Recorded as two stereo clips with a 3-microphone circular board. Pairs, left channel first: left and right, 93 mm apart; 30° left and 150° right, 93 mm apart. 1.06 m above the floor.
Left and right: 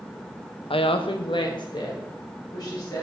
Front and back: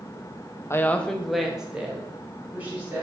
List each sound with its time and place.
0.7 s a woman speaking: 85° left, 0.5 m; by 3.0 s 140° left, 2.5 m